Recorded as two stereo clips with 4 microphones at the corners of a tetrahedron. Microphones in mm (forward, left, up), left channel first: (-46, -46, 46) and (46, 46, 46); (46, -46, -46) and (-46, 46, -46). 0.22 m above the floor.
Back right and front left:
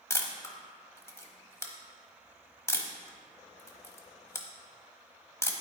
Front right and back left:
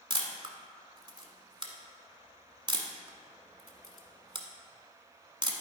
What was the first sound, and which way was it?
A camera shutter, 165° left.